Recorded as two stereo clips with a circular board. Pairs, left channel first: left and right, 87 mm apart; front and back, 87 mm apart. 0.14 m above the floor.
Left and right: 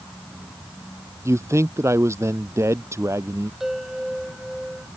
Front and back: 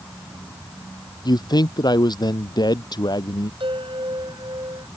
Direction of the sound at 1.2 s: 35° right.